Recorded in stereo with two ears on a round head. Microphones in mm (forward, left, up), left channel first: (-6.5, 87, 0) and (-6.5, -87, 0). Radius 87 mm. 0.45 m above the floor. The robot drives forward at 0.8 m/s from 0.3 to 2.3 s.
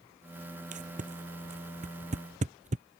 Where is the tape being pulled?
45° right (ahead or behind); by 2.9 s 40° right (ahead or behind).